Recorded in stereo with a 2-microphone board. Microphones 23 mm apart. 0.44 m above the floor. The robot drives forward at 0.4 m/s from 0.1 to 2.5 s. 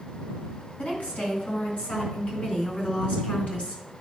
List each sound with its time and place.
0.8 s a woman speaking: 75° left (ahead or behind), 3.5 m